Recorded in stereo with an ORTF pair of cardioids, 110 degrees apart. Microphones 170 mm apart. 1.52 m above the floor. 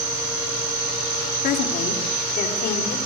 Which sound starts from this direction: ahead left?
A woman speaking, at 1.4 s.